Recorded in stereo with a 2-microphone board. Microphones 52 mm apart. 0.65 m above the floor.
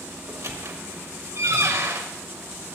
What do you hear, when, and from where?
0.3 s a squeak: 75° right (ahead or behind), 1.4 m